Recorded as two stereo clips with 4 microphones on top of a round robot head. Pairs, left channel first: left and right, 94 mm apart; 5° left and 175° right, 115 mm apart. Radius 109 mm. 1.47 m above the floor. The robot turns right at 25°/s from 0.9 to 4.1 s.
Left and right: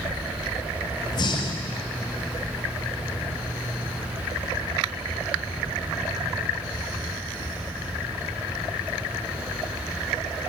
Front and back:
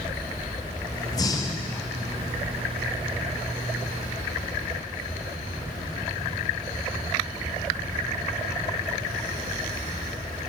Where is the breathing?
55° left, 0.7 m; by 1.8 s 75° left, 0.7 m.